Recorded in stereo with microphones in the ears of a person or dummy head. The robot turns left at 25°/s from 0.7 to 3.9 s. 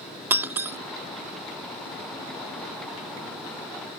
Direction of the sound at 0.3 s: 15° right (ahead or behind).